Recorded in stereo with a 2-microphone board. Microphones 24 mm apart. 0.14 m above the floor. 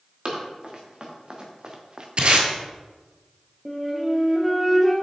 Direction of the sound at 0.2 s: 40° right (ahead or behind).